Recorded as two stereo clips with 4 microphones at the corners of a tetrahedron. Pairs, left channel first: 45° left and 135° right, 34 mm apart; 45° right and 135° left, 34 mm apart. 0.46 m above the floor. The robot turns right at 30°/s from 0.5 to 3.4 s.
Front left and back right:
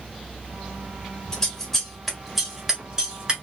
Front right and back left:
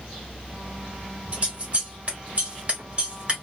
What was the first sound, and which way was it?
Scissors, 110° left.